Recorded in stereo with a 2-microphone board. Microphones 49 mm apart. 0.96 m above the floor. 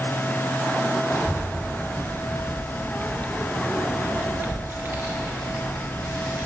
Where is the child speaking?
65° left (ahead or behind), 2 m; by 6.5 s 80° right, 1.9 m.